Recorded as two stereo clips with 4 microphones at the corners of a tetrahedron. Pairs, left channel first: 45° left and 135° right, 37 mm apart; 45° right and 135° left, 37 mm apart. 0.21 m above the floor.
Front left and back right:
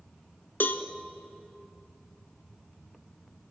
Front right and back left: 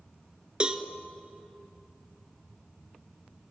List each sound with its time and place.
0.6 s a cowbell: 75° left, 0.7 m